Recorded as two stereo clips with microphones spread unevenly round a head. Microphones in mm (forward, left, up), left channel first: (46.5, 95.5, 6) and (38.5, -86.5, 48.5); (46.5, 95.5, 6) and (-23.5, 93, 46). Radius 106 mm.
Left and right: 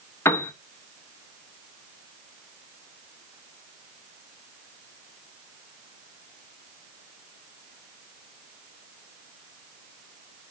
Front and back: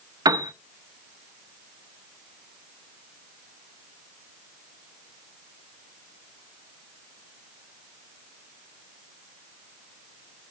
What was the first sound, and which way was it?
A piano, 170° left.